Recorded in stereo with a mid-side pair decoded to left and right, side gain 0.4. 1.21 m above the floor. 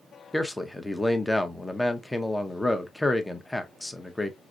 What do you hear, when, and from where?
0.3 s a man speaking: 10° left, 0.8 m